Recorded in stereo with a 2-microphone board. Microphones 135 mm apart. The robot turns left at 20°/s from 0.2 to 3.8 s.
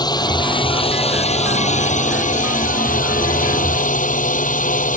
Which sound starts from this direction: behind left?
A drone, at 0.0 s.